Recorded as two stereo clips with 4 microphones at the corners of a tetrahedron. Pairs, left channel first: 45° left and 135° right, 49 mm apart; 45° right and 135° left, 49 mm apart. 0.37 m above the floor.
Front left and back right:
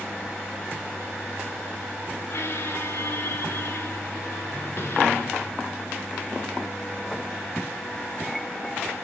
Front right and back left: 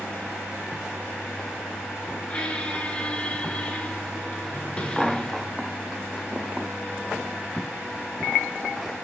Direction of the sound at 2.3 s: 20° left.